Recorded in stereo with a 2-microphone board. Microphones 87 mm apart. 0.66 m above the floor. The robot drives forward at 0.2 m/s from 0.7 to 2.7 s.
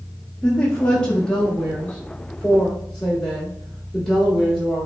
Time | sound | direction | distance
0.4 | a woman speaking | 10° left (ahead or behind) | 0.8 m